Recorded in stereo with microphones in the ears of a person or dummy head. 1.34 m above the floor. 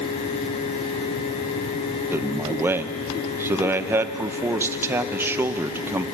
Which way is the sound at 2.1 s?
10° right (ahead or behind).